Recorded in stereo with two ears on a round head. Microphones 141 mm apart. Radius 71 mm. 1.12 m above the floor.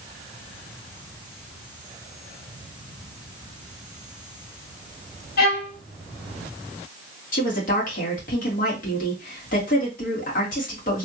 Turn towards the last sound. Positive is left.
turn(degrees=60)  # may be behind; listen again after turning